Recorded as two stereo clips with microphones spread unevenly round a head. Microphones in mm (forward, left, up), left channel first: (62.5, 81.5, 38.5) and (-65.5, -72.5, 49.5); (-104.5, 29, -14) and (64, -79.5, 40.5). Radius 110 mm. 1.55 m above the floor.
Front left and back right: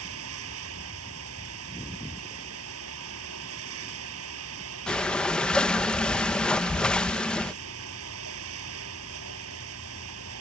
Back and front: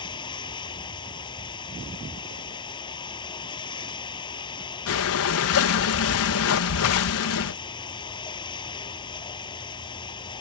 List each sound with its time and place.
0.0 s running water: 145° right
4.9 s breathing: 135° left